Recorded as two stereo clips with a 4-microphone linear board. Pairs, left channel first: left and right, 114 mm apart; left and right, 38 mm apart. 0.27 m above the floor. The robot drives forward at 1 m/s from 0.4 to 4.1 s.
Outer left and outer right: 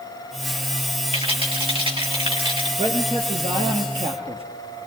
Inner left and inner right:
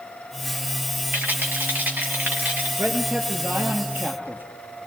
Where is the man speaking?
70° right (ahead or behind), 5.5 m; by 4.4 s 60° right (ahead or behind), 6.5 m.